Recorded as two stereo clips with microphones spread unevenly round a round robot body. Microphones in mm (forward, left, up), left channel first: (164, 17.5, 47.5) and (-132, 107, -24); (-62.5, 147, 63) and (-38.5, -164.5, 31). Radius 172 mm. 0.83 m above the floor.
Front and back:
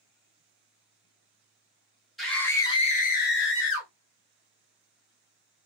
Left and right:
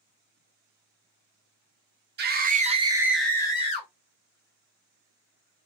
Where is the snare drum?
I don't hear a snare drum.